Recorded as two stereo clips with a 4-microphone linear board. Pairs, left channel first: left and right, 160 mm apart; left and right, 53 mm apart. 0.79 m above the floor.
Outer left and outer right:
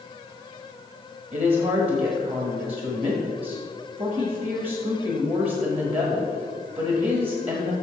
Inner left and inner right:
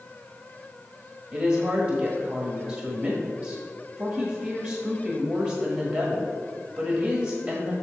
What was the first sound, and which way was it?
A woman speaking, 40° right (ahead or behind).